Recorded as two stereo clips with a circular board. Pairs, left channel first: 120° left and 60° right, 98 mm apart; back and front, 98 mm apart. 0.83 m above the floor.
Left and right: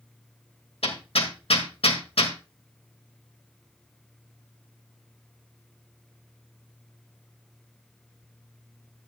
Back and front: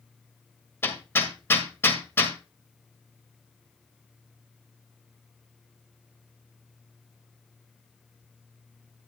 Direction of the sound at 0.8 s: 115° left.